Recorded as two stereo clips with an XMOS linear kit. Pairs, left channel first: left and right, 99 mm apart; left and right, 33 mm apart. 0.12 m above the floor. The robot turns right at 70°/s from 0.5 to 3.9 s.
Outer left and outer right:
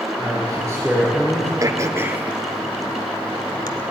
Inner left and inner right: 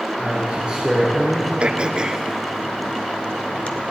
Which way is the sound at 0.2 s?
50° right.